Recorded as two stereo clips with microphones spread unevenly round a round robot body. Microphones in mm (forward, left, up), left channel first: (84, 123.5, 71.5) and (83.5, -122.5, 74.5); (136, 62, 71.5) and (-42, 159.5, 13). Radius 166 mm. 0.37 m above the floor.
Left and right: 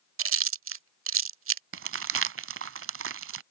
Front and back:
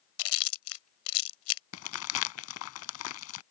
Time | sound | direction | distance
0.2 | chewing | 60° right | ?
1.7 | crumpling | 50° right | ?